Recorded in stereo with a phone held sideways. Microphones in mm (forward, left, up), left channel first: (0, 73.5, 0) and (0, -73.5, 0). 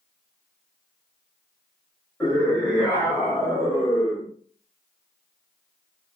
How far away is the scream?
About 2.0 m.